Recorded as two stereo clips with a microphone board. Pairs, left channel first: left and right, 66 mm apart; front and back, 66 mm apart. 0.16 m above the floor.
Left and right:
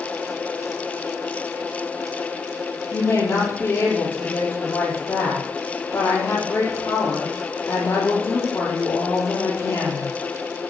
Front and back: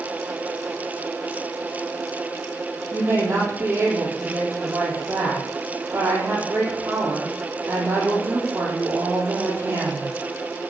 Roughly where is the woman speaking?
Behind left.